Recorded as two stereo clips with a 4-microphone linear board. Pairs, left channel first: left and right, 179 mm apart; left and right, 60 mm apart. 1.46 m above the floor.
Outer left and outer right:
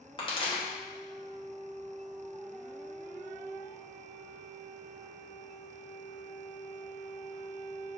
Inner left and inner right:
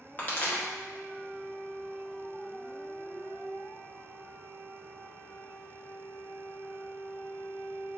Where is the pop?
30° left (ahead or behind), 1.0 m.